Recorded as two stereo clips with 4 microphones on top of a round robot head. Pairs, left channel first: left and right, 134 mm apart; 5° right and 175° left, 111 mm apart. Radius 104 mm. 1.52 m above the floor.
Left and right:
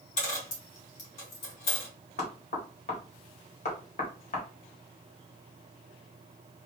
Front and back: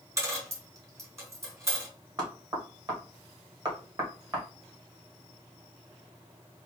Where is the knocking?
125° left, 1.6 m.